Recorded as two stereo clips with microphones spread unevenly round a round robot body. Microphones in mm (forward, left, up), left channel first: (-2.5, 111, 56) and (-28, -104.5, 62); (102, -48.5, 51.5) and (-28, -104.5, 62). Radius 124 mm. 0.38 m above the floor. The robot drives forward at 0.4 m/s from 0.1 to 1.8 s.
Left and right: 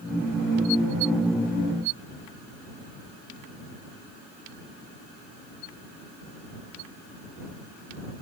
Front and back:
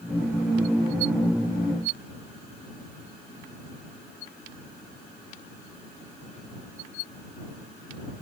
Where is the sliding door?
No sliding door in this recording.